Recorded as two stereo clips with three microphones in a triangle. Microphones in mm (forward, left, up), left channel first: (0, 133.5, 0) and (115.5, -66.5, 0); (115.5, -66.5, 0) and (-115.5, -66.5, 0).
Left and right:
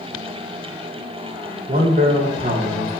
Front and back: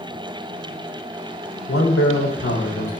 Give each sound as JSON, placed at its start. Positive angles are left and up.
{"t": 1.7, "sound": "a man speaking", "azimuth_deg": -10, "distance_m": 3.0}